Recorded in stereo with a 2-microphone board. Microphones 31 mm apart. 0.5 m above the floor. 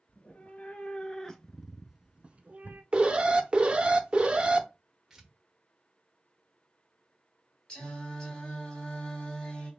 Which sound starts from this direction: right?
An alarm, at 2.9 s.